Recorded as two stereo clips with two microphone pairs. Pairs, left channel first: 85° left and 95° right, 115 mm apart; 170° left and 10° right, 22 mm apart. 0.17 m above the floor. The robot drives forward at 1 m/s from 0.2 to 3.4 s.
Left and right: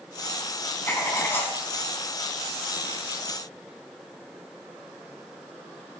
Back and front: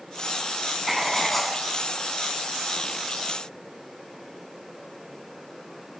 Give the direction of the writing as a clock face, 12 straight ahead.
10 o'clock.